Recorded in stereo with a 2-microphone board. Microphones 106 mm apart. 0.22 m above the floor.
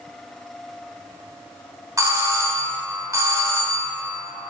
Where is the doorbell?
35° right (ahead or behind), 2 m.